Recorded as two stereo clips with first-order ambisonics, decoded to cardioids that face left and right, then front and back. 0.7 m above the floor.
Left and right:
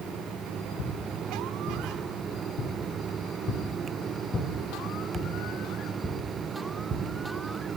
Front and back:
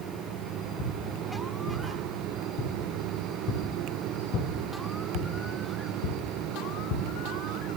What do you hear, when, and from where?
0.8 s footsteps: 55° left, 3.5 m; by 7.0 s 20° right, 2.5 m